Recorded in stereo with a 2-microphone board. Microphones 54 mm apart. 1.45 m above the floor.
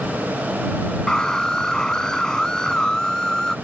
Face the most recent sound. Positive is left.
turn(degrees=15)  # may be behind; listen again after turning